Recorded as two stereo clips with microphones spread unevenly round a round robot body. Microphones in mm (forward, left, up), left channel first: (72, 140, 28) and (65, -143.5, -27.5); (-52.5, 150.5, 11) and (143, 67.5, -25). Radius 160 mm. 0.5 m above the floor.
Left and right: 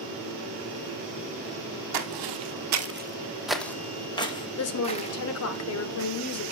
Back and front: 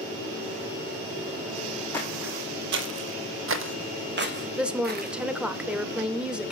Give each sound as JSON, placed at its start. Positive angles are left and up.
{"t": 1.9, "sound": "footsteps", "azimuth_deg": -125, "distance_m": 1.4}
{"t": 4.6, "sound": "a woman speaking", "azimuth_deg": 55, "distance_m": 1.6}